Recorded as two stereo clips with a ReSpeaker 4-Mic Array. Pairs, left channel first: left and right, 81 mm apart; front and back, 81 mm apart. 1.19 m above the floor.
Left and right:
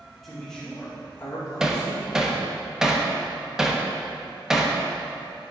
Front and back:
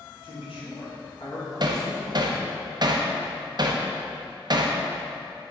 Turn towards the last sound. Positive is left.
turn(degrees=-170)